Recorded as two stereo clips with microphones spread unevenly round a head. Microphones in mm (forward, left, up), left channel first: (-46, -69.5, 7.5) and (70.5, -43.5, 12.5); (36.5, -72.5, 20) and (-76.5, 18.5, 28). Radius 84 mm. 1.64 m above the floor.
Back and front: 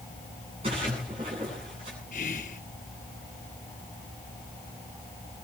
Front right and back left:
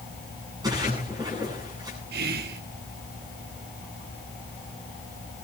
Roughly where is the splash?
Left.